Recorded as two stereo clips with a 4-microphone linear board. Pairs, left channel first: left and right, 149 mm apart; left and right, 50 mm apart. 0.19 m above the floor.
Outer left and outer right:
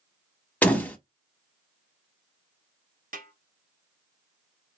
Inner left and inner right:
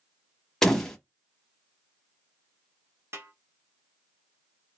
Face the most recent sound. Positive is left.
turn(degrees=-65)  # may be behind; listen again after turning